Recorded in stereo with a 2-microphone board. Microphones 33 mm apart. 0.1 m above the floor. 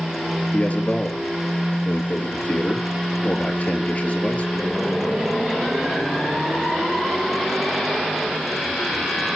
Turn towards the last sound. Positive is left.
turn(degrees=50)  # may be behind; listen again after turning